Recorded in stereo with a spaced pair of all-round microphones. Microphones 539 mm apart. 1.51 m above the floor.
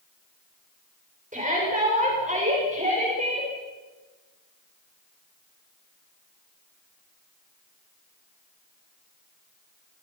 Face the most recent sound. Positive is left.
turn(degrees=-15)  # may be behind; listen again after turning